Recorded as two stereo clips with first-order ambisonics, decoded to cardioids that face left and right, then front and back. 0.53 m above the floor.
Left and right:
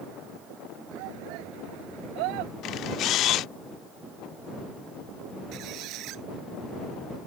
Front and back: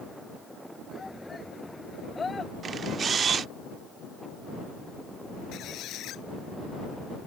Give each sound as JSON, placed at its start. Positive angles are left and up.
{"t": 0.9, "sound": "a shout", "azimuth_deg": -80}
{"t": 2.6, "sound": "a camera shutter", "azimuth_deg": 125}
{"t": 5.5, "sound": "a squeak", "azimuth_deg": -50}